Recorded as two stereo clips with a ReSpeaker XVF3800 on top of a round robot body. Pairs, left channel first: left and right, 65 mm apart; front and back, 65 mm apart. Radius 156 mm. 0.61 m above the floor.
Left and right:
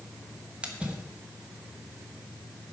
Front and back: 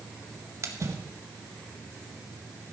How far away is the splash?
About 1.7 m.